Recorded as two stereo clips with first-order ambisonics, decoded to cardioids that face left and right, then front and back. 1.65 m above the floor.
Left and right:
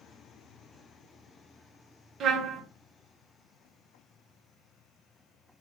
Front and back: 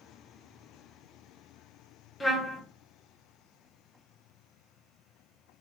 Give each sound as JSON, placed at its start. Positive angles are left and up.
{"t": 2.2, "sound": "a trumpet", "azimuth_deg": -85, "distance_m": 0.8}